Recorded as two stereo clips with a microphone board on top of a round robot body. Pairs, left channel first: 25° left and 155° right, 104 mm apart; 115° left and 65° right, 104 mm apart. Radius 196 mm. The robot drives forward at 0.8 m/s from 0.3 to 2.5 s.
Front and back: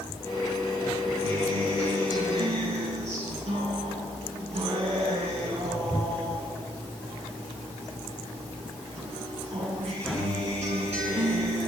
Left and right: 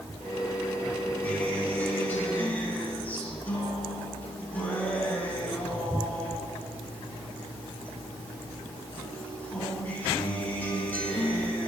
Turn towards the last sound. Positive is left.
turn(degrees=-175)